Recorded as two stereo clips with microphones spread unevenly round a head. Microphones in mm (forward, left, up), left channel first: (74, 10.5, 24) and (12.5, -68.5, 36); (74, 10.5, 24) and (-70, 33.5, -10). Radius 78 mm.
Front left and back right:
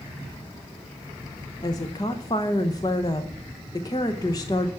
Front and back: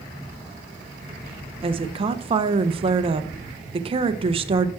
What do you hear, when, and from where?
1.6 s a woman speaking: 115° left, 0.8 m